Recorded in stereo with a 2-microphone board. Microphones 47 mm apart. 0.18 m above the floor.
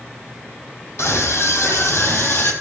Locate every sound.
1.0 s a scream: 75° left (ahead or behind), 6 m; by 2.5 s 60° left (ahead or behind), 5.5 m